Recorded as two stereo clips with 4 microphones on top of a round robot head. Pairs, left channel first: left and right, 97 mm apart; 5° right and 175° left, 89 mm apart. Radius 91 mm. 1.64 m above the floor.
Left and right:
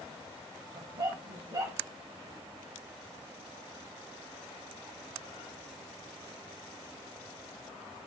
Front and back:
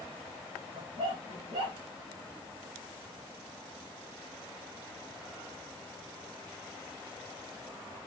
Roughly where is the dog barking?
Behind right.